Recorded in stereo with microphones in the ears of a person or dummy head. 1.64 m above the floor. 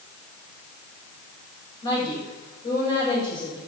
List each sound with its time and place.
1.8 s a woman speaking: 25° left (ahead or behind), 8.5 m